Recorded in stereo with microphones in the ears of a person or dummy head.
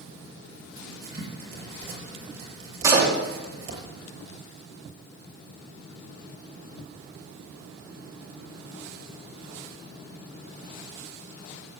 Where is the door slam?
25° right (ahead or behind), 3 m.